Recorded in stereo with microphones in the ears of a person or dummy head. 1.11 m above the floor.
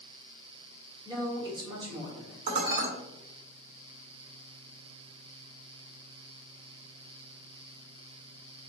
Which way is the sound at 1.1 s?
25° right (ahead or behind).